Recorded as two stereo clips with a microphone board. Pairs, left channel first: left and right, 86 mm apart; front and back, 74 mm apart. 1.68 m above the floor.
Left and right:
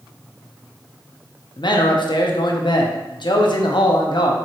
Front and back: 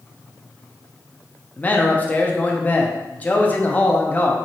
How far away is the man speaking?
About 0.8 m.